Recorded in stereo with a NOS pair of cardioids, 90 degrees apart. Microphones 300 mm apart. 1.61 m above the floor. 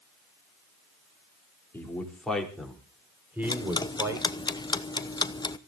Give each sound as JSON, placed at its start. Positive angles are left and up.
{"t": 1.7, "sound": "a man speaking", "azimuth_deg": 5, "distance_m": 4.5}
{"t": 3.4, "sound": "ticking", "azimuth_deg": 15, "distance_m": 1.0}